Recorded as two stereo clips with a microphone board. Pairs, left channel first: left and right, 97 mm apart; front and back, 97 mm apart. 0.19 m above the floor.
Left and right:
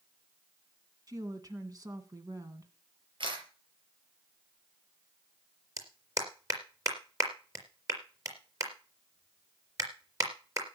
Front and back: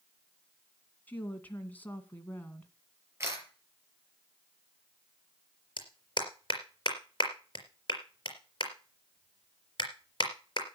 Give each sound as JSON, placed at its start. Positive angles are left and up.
{"t": 1.1, "sound": "a woman speaking", "azimuth_deg": -65, "distance_m": 2.0}
{"t": 3.2, "sound": "a camera shutter", "azimuth_deg": -115, "distance_m": 5.5}
{"t": 5.8, "sound": "a clap", "azimuth_deg": -35, "distance_m": 4.0}